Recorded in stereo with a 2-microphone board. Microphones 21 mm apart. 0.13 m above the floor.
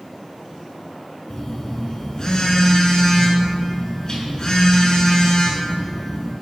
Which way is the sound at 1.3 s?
35° left (ahead or behind).